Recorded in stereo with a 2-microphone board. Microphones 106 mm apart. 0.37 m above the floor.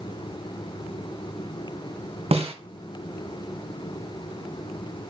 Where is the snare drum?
75° right (ahead or behind), 1.7 m.